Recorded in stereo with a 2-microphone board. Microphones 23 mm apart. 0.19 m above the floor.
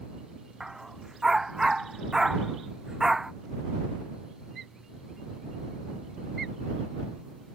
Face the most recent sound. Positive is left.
turn(degrees=-20)  # may be behind; listen again after turning